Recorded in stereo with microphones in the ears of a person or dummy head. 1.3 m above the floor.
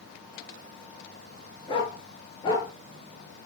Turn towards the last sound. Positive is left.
turn(degrees=30)  # may be behind; listen again after turning